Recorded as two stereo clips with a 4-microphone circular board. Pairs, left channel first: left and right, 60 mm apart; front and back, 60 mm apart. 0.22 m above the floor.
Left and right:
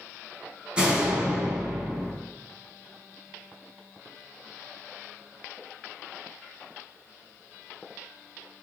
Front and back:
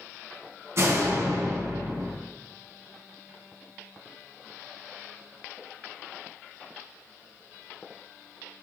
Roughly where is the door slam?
Behind.